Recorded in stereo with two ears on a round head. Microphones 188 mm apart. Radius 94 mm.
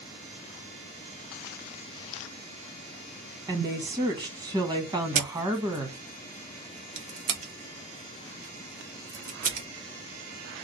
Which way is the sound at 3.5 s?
20° right (ahead or behind).